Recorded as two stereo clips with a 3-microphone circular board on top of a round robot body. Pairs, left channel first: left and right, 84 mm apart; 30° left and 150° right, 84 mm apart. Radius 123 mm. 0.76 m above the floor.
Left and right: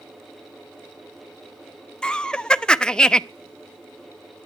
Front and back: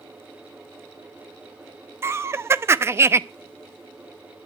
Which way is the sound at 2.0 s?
165° left.